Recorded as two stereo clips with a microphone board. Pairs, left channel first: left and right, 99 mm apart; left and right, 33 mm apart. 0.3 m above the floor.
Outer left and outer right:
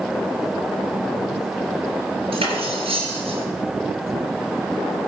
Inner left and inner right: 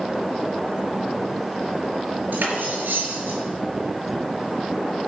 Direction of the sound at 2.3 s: 80° right.